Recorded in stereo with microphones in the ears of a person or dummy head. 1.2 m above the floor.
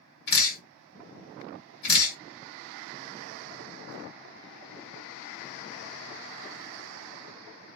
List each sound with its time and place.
0.3 s dripping: 60° left (ahead or behind), 1.5 m